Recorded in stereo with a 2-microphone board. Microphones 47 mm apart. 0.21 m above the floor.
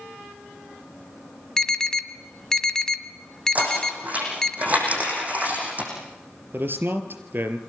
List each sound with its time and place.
1.6 s an alarm: 10° left (ahead or behind), 1.8 m
3.5 s knocking: 35° right (ahead or behind), 9.5 m
6.5 s a man speaking: 45° right (ahead or behind), 3.5 m